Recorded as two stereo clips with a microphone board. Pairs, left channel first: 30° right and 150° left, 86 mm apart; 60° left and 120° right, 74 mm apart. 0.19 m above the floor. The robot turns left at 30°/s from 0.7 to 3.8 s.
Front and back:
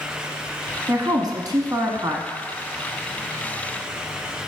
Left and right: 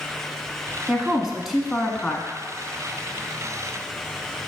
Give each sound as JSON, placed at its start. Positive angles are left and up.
{"t": 0.9, "sound": "a woman speaking", "azimuth_deg": 170, "distance_m": 1.4}